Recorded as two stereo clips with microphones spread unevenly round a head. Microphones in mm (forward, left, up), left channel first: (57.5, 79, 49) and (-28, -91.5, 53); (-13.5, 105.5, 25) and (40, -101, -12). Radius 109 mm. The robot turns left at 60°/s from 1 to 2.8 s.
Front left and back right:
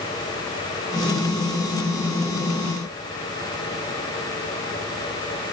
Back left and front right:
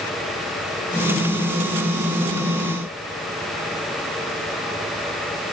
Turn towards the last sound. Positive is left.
No sound to turn to.